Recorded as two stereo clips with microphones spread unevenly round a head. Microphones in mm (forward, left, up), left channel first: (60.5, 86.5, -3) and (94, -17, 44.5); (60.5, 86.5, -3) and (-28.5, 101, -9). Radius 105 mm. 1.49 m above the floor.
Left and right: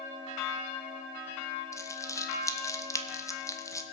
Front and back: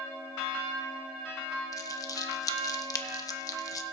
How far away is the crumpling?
About 1.1 m.